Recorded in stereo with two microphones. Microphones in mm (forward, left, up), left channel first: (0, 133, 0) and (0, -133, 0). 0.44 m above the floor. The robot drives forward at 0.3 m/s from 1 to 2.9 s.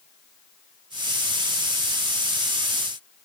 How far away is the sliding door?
No sliding door in this recording.